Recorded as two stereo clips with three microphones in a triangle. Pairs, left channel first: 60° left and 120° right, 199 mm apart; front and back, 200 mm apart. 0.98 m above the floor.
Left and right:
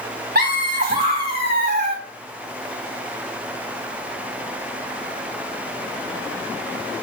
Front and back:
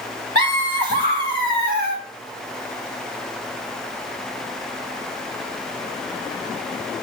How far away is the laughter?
About 3.5 m.